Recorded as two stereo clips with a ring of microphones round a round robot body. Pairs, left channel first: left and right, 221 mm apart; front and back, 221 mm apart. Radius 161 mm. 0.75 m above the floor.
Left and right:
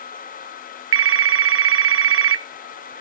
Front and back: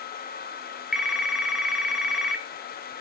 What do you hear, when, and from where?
0.9 s a phone ringing: 95° right, 0.5 m